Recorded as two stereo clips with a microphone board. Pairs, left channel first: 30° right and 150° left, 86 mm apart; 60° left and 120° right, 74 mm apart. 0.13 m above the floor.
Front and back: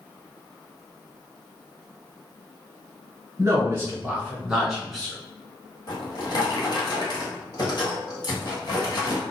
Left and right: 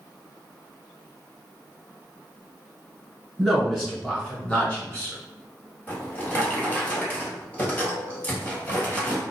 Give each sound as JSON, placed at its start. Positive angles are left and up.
{"t": 3.4, "sound": "a man speaking", "azimuth_deg": 150, "distance_m": 1.2}
{"t": 5.9, "sound": "a drawer", "azimuth_deg": -5, "distance_m": 1.3}